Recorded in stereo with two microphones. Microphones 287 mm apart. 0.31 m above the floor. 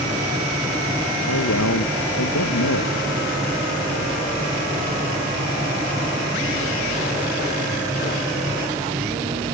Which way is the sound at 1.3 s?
80° left.